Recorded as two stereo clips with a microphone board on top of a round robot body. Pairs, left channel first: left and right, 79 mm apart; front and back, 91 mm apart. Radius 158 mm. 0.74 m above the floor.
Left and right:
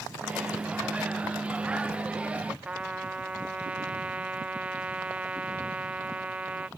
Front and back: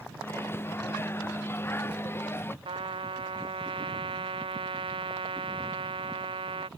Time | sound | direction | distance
0.2 | a microwave | 30° right | ?
2.6 | a trumpet | 165° right | ?